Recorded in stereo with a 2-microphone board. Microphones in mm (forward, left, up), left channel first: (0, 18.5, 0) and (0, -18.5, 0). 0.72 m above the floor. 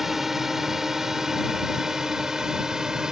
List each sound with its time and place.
0.0 s a drone: 10° right (ahead or behind); by 3.1 s 15° right (ahead or behind)